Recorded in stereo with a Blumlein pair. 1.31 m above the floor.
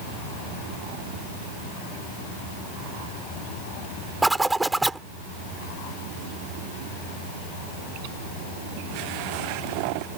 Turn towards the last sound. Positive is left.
turn(degrees=-5)